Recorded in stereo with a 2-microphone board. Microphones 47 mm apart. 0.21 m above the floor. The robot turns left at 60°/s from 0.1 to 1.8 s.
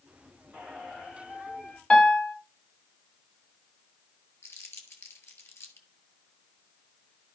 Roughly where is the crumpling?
Left.